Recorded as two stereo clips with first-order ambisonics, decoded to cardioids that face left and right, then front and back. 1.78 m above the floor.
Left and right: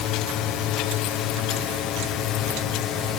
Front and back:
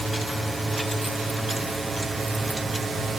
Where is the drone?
95° left; by 3.2 s 110° left.